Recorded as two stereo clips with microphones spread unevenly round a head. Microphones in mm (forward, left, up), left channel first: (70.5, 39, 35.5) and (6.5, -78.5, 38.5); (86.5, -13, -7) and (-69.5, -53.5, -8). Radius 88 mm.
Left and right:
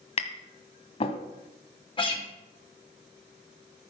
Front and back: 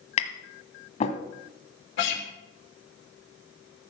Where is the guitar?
10° left, 3 m.